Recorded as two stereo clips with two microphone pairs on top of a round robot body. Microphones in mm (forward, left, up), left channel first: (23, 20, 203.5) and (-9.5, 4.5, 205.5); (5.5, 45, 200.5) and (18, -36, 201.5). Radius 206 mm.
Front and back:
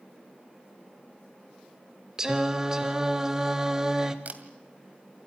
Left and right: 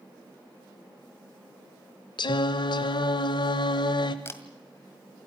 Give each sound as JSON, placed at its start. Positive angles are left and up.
{"t": 2.2, "sound": "singing", "azimuth_deg": 135, "distance_m": 0.6}
{"t": 4.2, "sound": "a camera shutter", "azimuth_deg": 160, "distance_m": 2.0}